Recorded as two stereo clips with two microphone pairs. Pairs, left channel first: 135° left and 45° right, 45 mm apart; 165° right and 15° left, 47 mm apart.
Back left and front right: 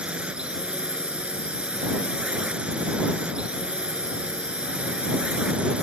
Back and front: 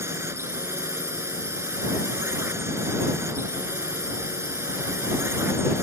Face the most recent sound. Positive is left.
turn(degrees=20)